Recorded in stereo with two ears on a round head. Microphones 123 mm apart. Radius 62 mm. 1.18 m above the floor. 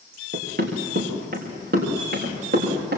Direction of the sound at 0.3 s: 70° right (ahead or behind).